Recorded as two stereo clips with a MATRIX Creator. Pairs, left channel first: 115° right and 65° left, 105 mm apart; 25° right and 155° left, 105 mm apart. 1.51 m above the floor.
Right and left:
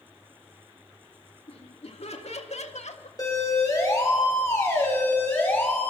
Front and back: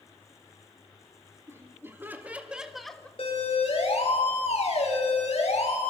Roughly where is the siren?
Ahead right.